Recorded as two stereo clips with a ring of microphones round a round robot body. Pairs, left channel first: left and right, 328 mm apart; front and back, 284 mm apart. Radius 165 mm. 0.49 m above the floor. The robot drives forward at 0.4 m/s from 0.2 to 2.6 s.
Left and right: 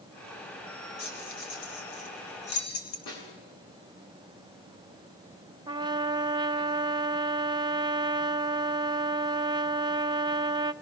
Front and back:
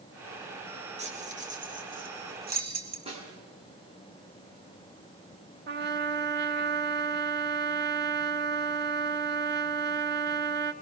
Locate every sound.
1.0 s keys jangling: 115° left, 3 m; by 3.0 s 125° left, 3.5 m
3.1 s a snare drum: 110° left, 7 m
5.7 s a trumpet: 160° right, 0.7 m